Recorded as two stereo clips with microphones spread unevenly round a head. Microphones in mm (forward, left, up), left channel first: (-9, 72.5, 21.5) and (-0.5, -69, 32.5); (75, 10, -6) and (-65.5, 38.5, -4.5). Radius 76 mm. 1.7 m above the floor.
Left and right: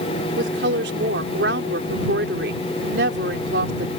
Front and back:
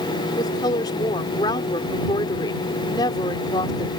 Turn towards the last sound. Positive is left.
turn(degrees=-75)